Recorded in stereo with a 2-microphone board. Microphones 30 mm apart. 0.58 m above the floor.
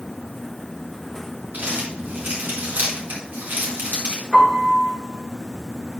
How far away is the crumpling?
About 4.5 m.